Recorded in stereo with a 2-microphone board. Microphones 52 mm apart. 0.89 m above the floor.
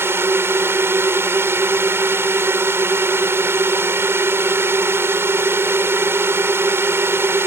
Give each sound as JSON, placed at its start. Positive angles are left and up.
{"t": 0.0, "sound": "a drone", "side_deg": -50}